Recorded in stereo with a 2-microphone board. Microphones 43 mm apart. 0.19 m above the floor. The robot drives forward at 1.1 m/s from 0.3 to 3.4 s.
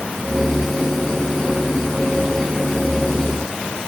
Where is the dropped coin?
I don't hear a dropped coin.